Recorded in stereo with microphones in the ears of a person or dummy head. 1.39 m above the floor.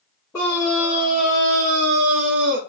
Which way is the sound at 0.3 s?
15° left (ahead or behind).